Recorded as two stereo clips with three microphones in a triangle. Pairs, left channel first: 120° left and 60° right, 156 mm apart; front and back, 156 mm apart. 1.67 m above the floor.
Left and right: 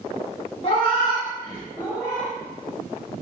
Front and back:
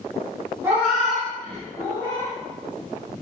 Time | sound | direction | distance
0.6 | a cat meowing | 120° left | 1.1 m